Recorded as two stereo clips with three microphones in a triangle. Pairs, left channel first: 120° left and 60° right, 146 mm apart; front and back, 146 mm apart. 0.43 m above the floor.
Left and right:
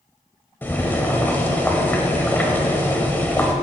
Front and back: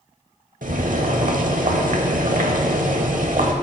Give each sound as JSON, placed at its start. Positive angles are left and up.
{"t": 0.6, "sound": "boiling", "azimuth_deg": -165, "distance_m": 0.9}